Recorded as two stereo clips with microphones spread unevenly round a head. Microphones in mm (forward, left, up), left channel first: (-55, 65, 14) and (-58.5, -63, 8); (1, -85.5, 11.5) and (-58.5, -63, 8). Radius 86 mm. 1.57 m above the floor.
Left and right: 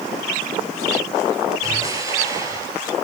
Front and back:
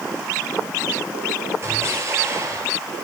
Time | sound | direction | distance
1.6 | an explosion | 160° right | 8.5 m